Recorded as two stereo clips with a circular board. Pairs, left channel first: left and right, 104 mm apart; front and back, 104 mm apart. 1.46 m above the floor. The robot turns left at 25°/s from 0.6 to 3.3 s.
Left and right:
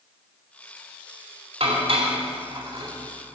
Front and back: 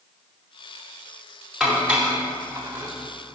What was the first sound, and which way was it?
Dishes clattering, 95° right.